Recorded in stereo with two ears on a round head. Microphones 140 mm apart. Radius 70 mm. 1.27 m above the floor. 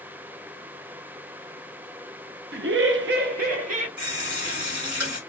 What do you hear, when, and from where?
2.5 s laughter: 65° right (ahead or behind), 0.5 m; by 3.9 s 45° right (ahead or behind), 0.9 m
4.0 s a running tap: 60° right (ahead or behind), 1.8 m